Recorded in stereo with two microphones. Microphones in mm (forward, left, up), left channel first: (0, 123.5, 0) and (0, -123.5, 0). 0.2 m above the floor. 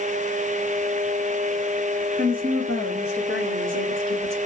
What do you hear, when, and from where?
2.2 s a woman speaking: 25° right (ahead or behind), 2.5 m; by 4.4 s 40° right (ahead or behind), 1.7 m